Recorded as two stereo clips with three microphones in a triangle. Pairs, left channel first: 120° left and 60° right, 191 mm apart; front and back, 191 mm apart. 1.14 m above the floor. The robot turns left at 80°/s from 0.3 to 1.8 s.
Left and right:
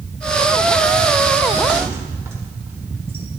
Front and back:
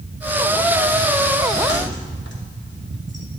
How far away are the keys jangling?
About 2 m.